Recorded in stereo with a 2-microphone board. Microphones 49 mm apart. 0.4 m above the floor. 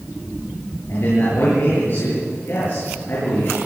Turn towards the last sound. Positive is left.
turn(degrees=55)  # may be behind; listen again after turning